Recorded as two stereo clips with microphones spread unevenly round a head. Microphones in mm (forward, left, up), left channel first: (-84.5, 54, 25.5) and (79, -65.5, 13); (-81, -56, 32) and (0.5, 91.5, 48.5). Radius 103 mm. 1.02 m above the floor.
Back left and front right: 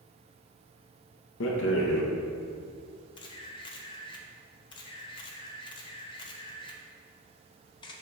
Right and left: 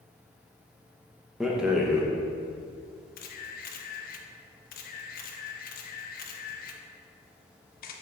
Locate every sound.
1.4 s a rattle: 150° left, 0.9 m
3.2 s a camera shutter: 150° right, 0.7 m